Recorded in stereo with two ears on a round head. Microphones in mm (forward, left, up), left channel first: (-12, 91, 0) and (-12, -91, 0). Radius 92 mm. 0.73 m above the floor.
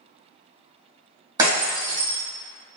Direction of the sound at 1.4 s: 20° right (ahead or behind).